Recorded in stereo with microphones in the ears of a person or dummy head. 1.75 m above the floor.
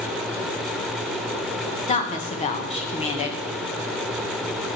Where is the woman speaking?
35° left (ahead or behind), 1.3 m.